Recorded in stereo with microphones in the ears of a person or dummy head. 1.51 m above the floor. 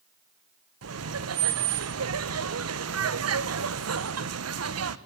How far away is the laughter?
About 1.5 m.